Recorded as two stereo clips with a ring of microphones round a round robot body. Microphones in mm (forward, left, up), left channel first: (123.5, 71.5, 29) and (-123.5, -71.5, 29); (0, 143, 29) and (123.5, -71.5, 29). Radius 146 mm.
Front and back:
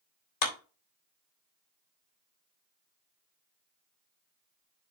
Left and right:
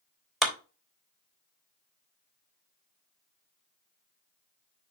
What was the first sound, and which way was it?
A clap, 30° left.